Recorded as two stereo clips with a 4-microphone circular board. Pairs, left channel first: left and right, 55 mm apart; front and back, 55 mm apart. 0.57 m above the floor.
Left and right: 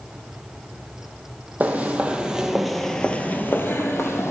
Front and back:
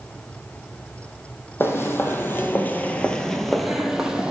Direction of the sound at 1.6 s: 35° right.